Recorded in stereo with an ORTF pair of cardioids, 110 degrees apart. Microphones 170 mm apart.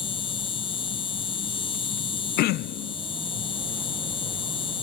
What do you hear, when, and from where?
0.0 s an insect: 30° left
2.4 s throat clearing: 70° left